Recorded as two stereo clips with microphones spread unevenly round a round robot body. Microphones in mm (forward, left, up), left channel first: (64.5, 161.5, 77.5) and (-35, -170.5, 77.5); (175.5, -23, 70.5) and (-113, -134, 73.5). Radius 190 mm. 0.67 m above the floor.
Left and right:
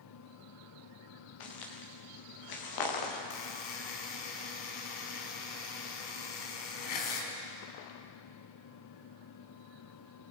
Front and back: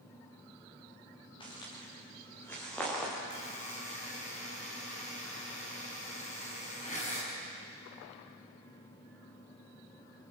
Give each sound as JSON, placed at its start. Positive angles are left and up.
{"t": 1.4, "sound": "footsteps", "azimuth_deg": 100, "distance_m": 5.0}
{"t": 3.3, "sound": "a buzzer", "azimuth_deg": 95, "distance_m": 4.5}